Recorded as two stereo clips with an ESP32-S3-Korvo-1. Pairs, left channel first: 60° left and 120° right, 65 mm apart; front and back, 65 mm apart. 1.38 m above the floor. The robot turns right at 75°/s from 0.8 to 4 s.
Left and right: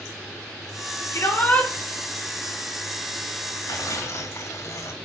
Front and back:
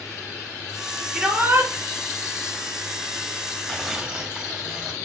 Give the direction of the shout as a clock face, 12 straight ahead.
9 o'clock.